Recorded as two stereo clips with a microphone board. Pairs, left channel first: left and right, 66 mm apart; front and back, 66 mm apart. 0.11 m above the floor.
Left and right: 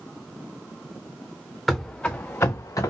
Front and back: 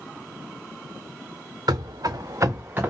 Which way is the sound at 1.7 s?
175° left.